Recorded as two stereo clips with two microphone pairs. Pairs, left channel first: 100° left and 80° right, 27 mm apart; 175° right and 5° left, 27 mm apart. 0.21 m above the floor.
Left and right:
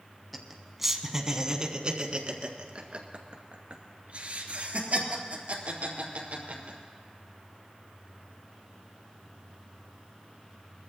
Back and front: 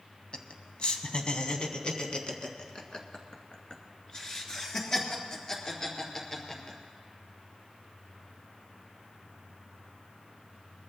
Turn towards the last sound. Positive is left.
turn(degrees=-110)